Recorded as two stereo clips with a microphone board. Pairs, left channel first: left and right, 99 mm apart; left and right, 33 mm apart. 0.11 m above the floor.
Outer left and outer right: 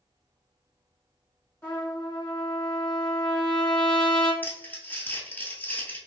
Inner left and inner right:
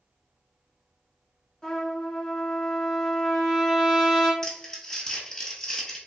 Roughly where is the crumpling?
Centre.